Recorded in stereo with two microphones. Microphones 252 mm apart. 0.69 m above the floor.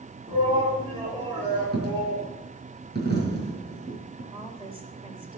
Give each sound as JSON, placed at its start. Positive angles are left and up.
{"t": 0.3, "sound": "a shout", "side_deg": -20, "distance_m": 6.5}
{"t": 1.7, "sound": "a dropped coin", "side_deg": -40, "distance_m": 4.0}
{"t": 4.3, "sound": "a woman speaking", "side_deg": -20, "distance_m": 3.0}